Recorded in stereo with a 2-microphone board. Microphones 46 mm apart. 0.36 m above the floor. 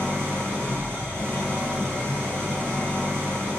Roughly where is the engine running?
Left.